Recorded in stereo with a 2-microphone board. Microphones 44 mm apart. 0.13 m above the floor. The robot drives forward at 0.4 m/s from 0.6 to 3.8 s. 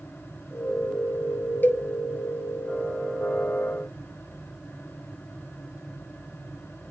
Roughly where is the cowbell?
Left.